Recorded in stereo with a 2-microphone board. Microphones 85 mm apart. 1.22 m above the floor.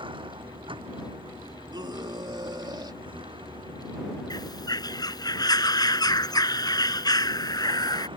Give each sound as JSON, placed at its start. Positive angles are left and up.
{"t": 0.0, "sound": "a vehicle", "side_deg": -70}
{"t": 1.7, "sound": "a scream", "side_deg": -55}
{"t": 4.3, "sound": "a bird", "side_deg": 50}